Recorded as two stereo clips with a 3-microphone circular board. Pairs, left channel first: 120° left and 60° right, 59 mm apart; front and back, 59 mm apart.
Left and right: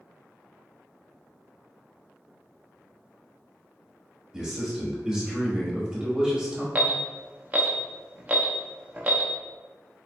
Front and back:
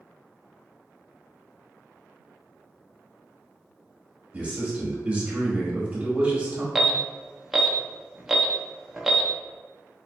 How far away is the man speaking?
About 1.2 m.